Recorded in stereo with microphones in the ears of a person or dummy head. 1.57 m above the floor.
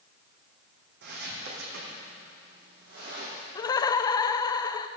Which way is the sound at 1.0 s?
65° right (ahead or behind).